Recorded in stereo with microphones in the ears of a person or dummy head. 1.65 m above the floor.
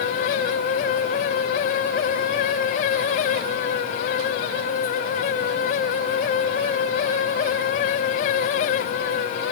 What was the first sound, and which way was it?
Only background noise.